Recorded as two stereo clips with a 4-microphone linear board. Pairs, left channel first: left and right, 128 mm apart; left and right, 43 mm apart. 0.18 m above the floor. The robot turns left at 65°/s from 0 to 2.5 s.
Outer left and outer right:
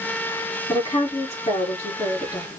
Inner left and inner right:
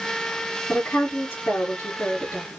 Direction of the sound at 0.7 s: 145° left.